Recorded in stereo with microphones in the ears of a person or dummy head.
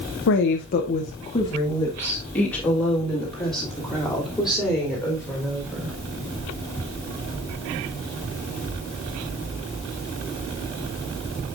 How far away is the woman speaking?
About 0.7 m.